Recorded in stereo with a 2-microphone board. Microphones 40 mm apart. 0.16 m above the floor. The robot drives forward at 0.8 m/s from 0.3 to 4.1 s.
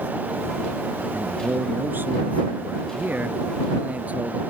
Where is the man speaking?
55° right (ahead or behind); by 4.4 s 40° right (ahead or behind).